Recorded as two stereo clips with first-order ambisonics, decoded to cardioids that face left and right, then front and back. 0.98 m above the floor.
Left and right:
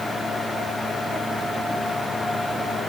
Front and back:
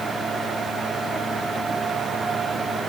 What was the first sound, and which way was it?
Only background noise.